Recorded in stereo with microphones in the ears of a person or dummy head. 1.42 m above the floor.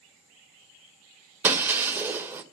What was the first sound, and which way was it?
Breaking glass, 10° right (ahead or behind).